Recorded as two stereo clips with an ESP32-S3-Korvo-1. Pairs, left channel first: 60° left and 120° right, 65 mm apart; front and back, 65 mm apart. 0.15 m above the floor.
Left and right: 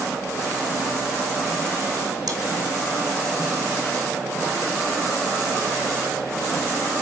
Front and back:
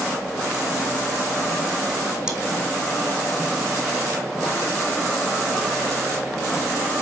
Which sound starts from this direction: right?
Chewing, at 2.3 s.